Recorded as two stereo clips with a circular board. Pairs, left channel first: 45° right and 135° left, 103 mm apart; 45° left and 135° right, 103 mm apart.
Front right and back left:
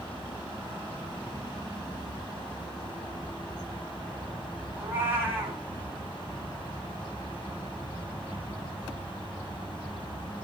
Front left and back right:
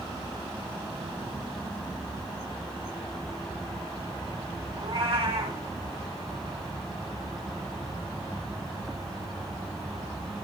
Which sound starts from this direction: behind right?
A cat meowing, at 4.8 s.